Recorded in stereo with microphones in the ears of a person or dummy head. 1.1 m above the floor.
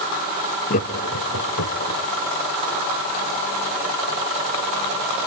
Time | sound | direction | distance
0.7 | laughter | 45° left (ahead or behind) | 1.5 m